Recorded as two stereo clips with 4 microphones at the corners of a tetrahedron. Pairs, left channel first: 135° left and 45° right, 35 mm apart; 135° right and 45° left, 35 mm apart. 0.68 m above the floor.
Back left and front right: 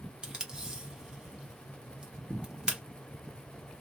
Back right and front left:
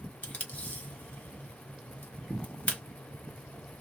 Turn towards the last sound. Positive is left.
turn(degrees=-110)